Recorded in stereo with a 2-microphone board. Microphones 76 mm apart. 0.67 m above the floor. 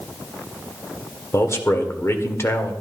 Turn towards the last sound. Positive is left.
turn(degrees=35)  # may be behind; listen again after turning